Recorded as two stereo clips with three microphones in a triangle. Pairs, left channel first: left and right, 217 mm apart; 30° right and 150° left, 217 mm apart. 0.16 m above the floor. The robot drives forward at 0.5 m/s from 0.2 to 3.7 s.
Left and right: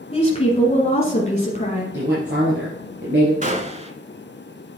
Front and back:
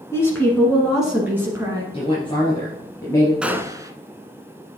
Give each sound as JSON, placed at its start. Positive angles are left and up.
{"t": 0.1, "sound": "a woman speaking", "azimuth_deg": 40, "distance_m": 1.4}
{"t": 1.9, "sound": "a woman speaking", "azimuth_deg": -90, "distance_m": 2.5}
{"t": 3.4, "sound": "a gunshot", "azimuth_deg": -125, "distance_m": 0.6}